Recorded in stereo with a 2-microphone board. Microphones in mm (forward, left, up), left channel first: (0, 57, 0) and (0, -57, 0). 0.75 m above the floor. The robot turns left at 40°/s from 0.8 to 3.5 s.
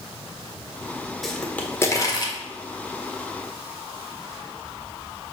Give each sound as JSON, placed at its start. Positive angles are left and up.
{"t": 1.2, "sound": "a pop", "side_deg": 0, "distance_m": 1.3}